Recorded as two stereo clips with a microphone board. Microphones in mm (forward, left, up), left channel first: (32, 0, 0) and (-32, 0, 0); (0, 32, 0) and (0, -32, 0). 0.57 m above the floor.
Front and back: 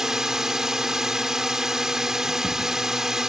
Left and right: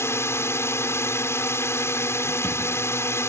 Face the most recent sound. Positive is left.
turn(degrees=100)